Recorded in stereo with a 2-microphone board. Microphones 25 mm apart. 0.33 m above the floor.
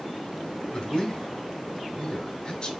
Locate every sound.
0.7 s a man speaking: 40° left (ahead or behind), 1.5 m